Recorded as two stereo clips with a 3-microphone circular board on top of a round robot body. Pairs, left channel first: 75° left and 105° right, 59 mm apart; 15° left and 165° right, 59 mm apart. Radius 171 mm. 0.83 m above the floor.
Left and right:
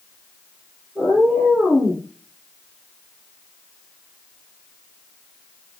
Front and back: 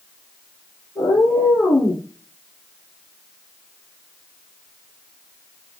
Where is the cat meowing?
15° right, 5.5 m; by 2.0 s 20° right, 4.5 m.